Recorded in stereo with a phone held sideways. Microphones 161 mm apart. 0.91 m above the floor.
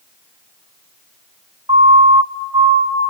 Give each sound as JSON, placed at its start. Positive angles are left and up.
{"t": 1.7, "sound": "a siren", "side_deg": -30, "distance_m": 3.0}